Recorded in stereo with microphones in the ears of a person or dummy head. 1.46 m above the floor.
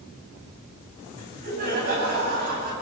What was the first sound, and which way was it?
Laughter, 50° right (ahead or behind).